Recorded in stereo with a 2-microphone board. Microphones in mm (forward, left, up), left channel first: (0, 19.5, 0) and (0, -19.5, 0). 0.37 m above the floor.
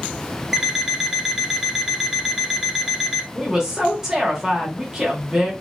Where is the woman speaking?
15° right (ahead or behind), 0.9 m.